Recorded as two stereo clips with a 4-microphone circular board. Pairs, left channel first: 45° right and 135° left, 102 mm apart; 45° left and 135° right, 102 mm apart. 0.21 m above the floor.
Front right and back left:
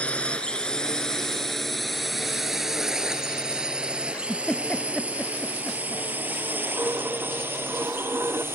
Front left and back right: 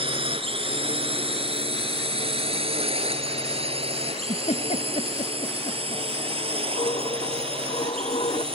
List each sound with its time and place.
0.0 s a drone: 120° right; by 8.5 s 160° right
4.1 s a giggle: 35° left
6.8 s a dropped coin: 70° left